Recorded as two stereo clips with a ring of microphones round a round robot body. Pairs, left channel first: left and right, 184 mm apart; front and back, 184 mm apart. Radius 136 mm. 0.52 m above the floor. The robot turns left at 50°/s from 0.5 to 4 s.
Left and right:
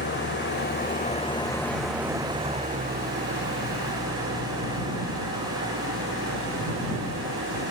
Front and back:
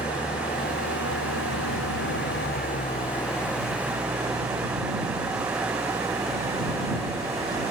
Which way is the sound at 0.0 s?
70° left.